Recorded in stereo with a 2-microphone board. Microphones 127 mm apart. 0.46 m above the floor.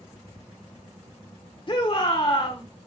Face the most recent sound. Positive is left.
turn(degrees=40)  # may be behind; listen again after turning